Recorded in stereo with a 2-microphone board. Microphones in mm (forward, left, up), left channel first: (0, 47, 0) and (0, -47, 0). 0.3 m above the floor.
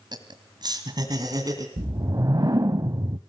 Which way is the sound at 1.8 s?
40° right (ahead or behind).